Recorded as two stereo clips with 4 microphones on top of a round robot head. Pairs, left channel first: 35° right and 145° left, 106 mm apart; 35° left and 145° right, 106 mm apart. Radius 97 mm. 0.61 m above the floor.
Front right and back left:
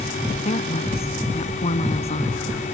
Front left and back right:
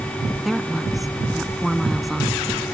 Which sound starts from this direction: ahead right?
A woman speaking, at 0.4 s.